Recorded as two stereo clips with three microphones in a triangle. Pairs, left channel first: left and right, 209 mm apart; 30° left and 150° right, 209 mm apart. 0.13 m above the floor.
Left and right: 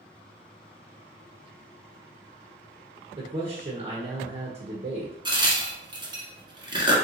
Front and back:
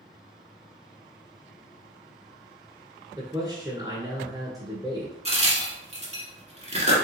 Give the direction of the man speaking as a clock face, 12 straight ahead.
3 o'clock.